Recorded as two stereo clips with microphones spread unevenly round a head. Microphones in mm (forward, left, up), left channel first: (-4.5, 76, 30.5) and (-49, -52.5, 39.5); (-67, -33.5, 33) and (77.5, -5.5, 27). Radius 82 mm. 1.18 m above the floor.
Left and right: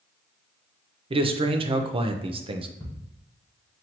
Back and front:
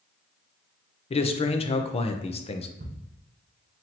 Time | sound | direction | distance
1.1 | a man speaking | 140° right | 0.6 m
2.8 | ticking | straight ahead | 1.2 m